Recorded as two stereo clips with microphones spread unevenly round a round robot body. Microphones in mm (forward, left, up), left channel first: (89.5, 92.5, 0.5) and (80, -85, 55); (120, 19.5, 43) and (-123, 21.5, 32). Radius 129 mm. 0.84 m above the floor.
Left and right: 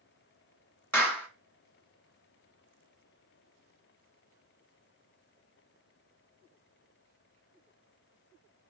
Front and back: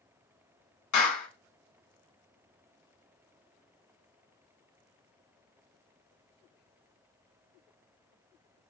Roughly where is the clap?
Ahead.